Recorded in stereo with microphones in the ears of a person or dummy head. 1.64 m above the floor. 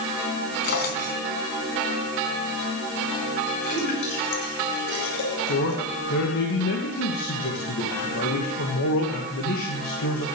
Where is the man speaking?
70° left (ahead or behind), 2.5 m.